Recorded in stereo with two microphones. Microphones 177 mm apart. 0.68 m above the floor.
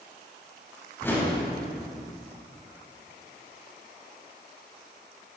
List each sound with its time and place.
1.0 s a whoosh: 15° left (ahead or behind), 5.5 m